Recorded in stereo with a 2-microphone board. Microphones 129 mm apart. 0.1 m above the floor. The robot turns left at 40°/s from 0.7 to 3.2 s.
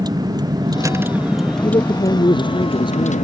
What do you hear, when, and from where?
0.0 s a vehicle: 150° right; by 3.2 s 110° left
1.6 s a man speaking: 120° left; by 3.1 s 60° left